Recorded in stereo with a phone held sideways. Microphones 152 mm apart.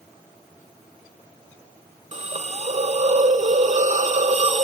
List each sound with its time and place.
2.1 s a hiss: 50° right (ahead or behind), 0.5 m